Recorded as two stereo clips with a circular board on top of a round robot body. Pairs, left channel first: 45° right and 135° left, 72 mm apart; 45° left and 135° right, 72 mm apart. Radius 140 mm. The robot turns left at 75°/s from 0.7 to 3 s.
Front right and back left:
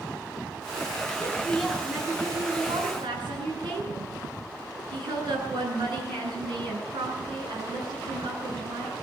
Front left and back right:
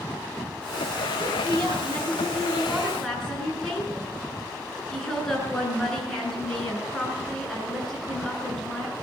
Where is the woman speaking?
95° right, 9.5 m; by 8.9 s 130° left, 9.5 m.